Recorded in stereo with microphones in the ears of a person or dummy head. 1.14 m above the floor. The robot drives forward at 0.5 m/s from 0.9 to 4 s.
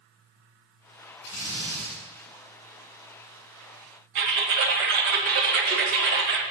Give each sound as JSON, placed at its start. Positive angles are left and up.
{"t": 1.2, "sound": "a drill", "side_deg": 55, "distance_m": 4.5}
{"t": 4.2, "sound": "typing on a keyboard", "side_deg": -70, "distance_m": 2.0}